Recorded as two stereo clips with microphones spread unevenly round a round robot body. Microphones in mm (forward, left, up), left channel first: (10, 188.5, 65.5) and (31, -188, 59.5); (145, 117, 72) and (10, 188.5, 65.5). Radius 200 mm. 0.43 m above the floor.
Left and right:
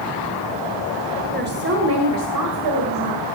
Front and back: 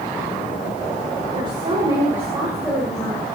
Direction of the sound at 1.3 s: 150° right.